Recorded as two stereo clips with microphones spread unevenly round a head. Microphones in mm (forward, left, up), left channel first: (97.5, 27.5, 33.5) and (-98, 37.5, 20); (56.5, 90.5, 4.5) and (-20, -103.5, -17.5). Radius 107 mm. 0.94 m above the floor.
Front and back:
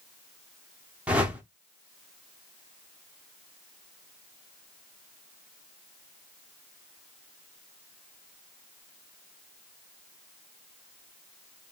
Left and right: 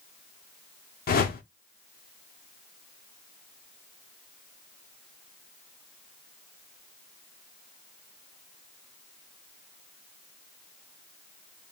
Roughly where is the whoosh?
Left.